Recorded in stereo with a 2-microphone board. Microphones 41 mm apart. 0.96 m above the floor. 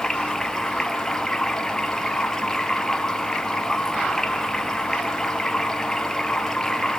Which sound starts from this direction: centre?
Running water, at 0.0 s.